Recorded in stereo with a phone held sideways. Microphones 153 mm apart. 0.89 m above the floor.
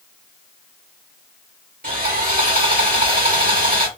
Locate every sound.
1.8 s sawing: 75° right (ahead or behind), 2.5 m